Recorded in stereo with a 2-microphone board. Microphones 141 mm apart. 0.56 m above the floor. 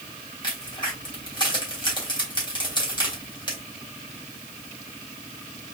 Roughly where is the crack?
Left.